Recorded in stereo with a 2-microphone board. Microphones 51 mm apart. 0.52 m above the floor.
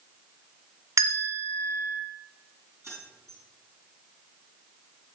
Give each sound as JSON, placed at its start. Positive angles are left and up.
{"t": 1.0, "sound": "a bell", "side_deg": -85, "distance_m": 1.4}
{"t": 2.8, "sound": "keys jangling", "side_deg": -65, "distance_m": 4.0}